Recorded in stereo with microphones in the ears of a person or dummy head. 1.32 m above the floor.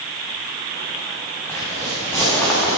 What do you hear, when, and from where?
1.5 s footsteps: 10° left (ahead or behind), 3 m